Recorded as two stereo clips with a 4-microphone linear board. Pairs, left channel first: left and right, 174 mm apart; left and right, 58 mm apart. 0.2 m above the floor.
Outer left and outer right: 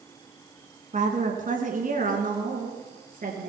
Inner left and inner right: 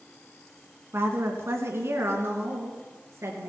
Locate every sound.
0.9 s a woman speaking: 45° right (ahead or behind), 2 m; by 3.5 s 50° right (ahead or behind), 4 m